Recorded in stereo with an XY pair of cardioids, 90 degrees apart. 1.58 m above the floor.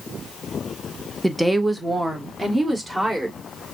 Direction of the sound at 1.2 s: 5° right.